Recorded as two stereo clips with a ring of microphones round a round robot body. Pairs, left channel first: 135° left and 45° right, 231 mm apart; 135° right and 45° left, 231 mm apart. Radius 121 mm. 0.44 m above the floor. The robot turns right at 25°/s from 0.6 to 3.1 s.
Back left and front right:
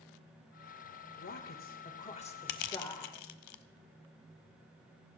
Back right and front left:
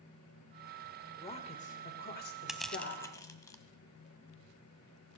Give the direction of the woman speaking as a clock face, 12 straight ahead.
7 o'clock.